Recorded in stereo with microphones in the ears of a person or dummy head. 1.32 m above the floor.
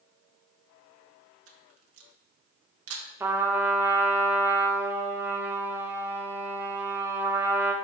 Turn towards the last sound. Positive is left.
turn(degrees=-15)  # may be behind; listen again after turning